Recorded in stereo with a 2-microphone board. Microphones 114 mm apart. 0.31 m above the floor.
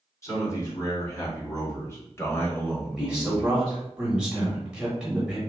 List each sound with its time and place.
0.2 s a man speaking: 30° left (ahead or behind), 2.0 m; by 3.8 s 5° left (ahead or behind), 1.0 m
3.0 s a man speaking: 10° right (ahead or behind), 1.1 m